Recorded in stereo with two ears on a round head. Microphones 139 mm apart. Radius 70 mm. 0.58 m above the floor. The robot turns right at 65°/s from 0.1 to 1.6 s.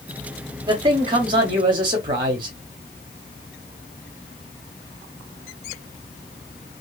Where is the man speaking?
130° right, 0.8 m; by 2.6 s 70° right, 0.8 m.